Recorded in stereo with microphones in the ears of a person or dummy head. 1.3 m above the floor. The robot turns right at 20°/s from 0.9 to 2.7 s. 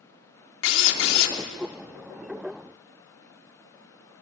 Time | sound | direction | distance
0.6 | a drill | 80° left | 3 m